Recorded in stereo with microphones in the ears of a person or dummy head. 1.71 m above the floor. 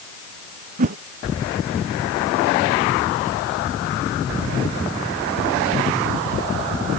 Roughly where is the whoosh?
Right.